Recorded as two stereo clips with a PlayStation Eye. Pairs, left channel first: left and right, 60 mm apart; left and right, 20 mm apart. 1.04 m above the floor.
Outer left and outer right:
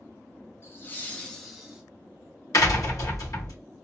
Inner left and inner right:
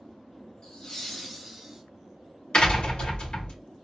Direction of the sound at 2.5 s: 75° left (ahead or behind).